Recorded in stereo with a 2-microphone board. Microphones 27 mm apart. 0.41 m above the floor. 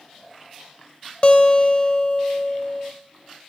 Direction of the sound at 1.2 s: 45° left (ahead or behind).